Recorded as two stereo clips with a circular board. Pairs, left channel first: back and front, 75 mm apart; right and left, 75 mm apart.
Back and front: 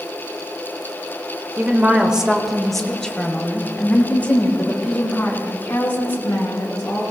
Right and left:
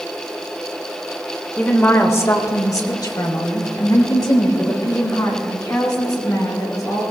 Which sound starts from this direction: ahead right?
A woman speaking, at 1.6 s.